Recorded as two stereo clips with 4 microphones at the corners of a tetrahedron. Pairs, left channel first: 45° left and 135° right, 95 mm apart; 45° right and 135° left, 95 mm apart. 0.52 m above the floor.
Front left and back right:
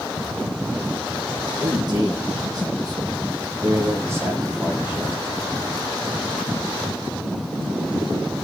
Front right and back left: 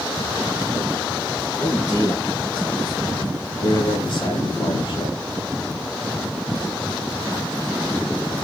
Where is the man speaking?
95° right, 4 m; by 5.2 s 65° right, 3.5 m.